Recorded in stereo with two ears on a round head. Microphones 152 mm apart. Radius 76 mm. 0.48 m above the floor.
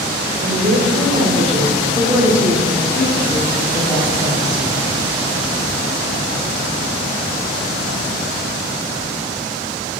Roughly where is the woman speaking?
Right.